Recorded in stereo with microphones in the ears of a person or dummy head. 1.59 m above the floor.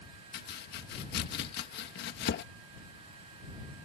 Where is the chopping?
60° left (ahead or behind).